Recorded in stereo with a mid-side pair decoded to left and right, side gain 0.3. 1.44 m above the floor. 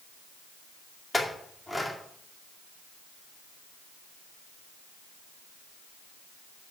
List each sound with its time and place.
1.1 s a clink: 10° left, 2.5 m